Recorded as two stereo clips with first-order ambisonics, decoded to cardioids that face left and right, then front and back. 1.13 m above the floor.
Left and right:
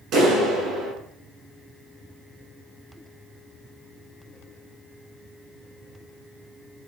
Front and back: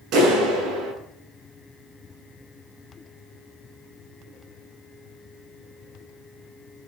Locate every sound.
0.1 s a clap: 135° right, 9.5 m